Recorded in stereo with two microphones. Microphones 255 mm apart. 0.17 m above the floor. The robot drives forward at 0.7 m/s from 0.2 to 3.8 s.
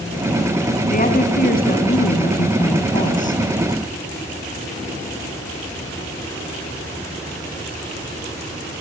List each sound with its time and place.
0.9 s a woman speaking: 35° left (ahead or behind), 1.9 m; by 3.4 s 30° left (ahead or behind), 2 m